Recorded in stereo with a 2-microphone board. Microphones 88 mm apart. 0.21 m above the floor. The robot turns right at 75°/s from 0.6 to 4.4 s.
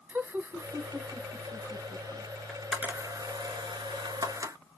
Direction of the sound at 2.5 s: 5° left (ahead or behind).